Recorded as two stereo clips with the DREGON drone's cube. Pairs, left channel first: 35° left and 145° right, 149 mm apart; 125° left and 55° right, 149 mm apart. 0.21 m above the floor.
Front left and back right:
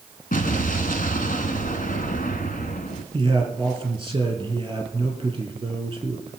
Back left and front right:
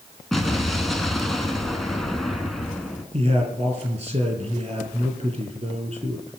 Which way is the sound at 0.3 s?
35° left.